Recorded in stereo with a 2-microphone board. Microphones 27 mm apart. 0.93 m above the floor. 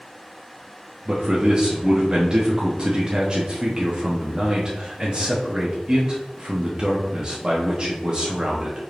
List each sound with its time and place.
1.1 s a man speaking: 30° right (ahead or behind), 0.7 m